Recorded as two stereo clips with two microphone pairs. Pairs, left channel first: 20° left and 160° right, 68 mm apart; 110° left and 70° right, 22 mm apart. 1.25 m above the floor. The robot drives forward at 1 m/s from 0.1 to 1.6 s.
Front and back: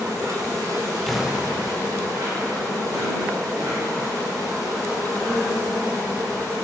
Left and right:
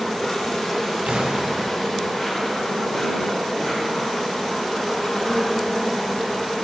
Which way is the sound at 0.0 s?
Straight behind.